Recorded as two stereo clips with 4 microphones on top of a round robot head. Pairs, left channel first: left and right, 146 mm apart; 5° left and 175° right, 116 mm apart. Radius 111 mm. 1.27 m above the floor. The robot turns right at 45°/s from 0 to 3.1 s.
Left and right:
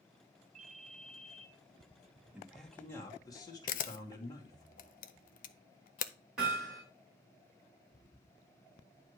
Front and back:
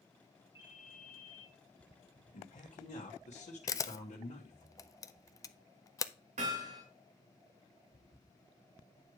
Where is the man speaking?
5° right, 1.5 m; by 4.7 s 25° left, 1.5 m.